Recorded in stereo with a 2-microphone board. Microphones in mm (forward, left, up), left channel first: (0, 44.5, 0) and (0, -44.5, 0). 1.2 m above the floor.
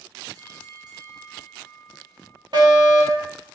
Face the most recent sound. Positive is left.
turn(degrees=-60)  # may be behind; listen again after turning